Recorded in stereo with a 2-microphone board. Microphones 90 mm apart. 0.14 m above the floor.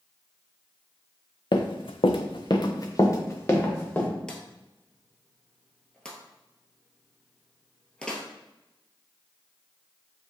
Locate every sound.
1.5 s running footsteps: 60° left (ahead or behind), 0.6 m; by 4.1 s 20° left (ahead or behind), 1.8 m
4.3 s a drawer: 10° left (ahead or behind), 0.9 m